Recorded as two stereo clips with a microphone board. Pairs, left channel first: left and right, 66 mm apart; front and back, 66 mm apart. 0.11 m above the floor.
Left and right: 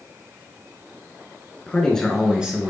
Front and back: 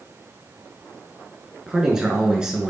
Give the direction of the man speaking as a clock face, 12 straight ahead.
8 o'clock.